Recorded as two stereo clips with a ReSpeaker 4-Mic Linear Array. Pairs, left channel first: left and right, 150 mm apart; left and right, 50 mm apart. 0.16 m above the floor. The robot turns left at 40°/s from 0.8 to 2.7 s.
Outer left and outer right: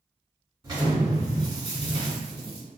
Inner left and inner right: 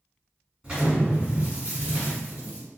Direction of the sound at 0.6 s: 45° right.